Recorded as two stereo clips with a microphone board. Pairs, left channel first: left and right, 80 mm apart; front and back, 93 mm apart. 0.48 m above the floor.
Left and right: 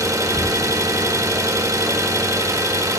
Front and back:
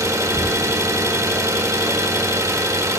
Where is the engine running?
130° right, 0.7 m.